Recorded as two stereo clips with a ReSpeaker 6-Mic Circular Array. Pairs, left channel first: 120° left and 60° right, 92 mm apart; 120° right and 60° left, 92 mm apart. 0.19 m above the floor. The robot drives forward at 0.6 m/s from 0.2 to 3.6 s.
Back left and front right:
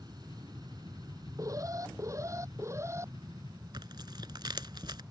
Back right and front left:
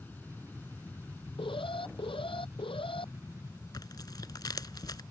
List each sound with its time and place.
0.0 s an aircraft: 55° right; by 5.1 s 65° right
1.4 s an alarm: 110° right; by 3.1 s 120° right
3.7 s tearing paper: 85° right